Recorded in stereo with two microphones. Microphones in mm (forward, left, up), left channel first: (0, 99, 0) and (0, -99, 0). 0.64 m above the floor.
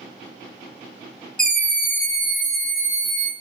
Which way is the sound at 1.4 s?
5° left (ahead or behind).